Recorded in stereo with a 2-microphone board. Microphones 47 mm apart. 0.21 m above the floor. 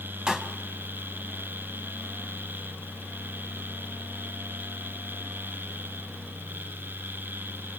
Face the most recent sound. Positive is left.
turn(degrees=-15)  # may be behind; listen again after turning